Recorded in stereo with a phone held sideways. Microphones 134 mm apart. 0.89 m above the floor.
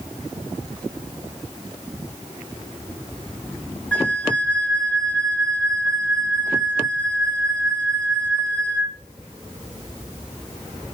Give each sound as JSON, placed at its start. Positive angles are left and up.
{"t": 3.9, "sound": "a flute", "side_deg": 10, "distance_m": 0.6}